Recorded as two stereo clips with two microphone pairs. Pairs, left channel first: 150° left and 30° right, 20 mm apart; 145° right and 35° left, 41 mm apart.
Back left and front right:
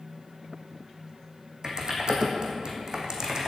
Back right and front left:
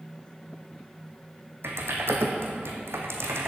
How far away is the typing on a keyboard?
About 2.0 m.